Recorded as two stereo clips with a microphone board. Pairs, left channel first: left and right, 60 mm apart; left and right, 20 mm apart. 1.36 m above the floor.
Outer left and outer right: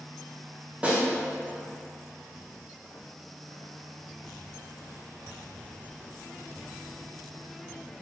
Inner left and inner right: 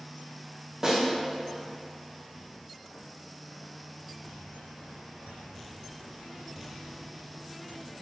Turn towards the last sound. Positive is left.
turn(degrees=-25)  # may be behind; listen again after turning